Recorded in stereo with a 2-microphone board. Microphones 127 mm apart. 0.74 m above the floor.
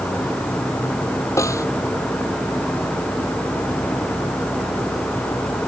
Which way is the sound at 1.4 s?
25° left (ahead or behind).